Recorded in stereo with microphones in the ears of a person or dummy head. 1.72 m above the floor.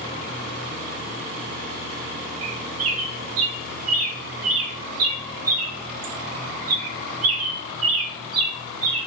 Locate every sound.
2.4 s a bird: 85° right, 0.7 m